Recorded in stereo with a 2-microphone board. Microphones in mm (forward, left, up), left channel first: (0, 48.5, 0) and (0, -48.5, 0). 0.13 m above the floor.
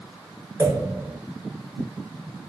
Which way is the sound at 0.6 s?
25° right (ahead or behind).